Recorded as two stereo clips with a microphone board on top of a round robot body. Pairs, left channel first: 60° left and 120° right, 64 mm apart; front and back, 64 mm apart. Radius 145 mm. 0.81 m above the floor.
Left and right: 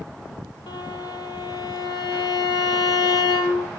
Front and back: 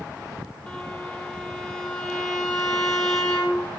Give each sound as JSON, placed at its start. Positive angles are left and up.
{"t": 0.7, "sound": "a violin", "azimuth_deg": 75, "distance_m": 4.5}